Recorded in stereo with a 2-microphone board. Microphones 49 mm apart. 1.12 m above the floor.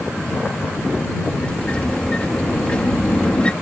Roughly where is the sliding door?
Left.